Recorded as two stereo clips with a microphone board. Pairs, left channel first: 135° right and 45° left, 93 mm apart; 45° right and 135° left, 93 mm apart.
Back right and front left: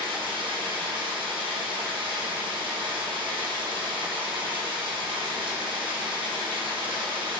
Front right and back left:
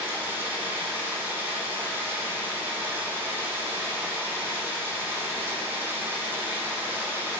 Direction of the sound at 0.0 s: 70° left.